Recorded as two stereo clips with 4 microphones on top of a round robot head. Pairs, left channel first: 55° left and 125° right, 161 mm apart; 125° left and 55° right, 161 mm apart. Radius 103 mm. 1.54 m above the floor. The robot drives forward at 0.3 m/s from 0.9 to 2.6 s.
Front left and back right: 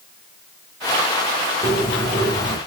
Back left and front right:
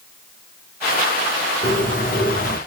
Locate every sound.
1.6 s a bird: 135° left, 1.2 m; by 2.6 s 150° left, 1.3 m